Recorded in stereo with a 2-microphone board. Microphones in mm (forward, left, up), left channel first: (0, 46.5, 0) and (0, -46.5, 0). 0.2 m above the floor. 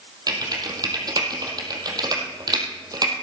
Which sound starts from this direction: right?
Typing on a keyboard, at 0.3 s.